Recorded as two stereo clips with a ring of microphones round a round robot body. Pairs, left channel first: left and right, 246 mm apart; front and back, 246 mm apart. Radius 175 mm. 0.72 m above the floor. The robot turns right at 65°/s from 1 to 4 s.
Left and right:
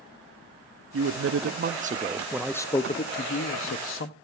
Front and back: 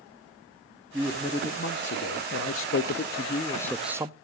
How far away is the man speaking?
About 0.8 m.